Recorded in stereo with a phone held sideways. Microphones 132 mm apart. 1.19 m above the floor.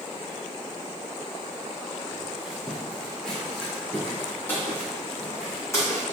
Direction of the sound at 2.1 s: 10° right (ahead or behind).